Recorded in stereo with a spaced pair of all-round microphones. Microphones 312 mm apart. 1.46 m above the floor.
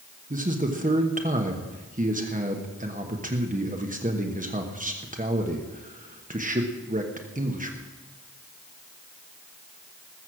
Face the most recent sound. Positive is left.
turn(degrees=-25)  # may be behind; listen again after turning